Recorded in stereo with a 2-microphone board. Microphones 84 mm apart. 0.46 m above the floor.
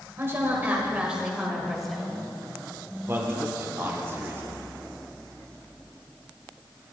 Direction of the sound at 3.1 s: 30° right (ahead or behind).